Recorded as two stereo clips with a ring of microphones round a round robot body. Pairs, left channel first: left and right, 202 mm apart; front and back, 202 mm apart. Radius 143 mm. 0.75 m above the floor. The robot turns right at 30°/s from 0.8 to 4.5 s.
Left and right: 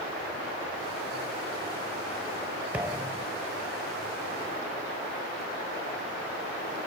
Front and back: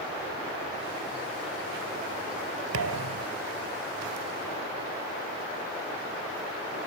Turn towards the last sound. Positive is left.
turn(degrees=-125)